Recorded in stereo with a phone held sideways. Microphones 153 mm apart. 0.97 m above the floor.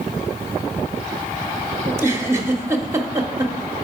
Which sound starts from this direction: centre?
A giggle, at 1.9 s.